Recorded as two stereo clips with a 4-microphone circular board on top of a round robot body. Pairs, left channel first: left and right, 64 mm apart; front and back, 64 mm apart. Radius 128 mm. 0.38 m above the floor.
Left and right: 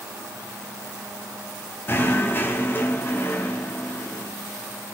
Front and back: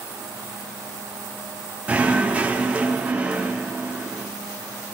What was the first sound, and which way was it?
Knocking, 120° left.